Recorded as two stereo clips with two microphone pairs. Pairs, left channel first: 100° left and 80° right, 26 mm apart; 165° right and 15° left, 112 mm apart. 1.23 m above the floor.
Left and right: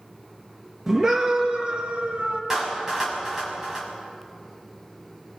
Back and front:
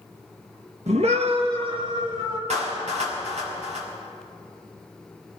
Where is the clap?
10° right, 6 m.